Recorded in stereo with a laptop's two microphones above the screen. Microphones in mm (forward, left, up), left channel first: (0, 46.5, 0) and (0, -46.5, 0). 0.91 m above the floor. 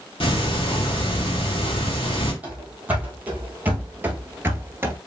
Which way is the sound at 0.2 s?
75° left (ahead or behind).